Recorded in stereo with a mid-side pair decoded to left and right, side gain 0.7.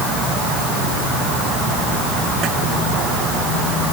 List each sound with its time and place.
Only background noise.